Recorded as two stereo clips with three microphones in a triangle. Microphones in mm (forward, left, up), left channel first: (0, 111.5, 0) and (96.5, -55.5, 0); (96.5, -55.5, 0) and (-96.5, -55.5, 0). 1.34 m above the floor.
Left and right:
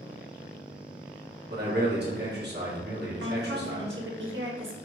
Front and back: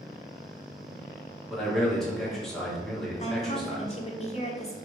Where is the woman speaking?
60° right, 0.9 m.